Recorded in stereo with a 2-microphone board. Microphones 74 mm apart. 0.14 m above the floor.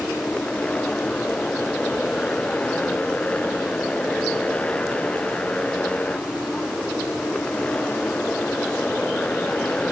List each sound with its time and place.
0.0 s a motorcycle: 15° left (ahead or behind)